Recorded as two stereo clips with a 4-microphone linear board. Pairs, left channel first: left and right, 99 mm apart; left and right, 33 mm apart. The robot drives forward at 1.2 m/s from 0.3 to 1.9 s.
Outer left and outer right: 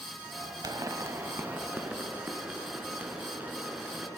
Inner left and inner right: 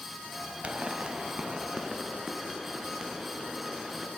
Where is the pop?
40° right (ahead or behind), 0.8 m; by 4.1 s 15° right (ahead or behind), 2 m.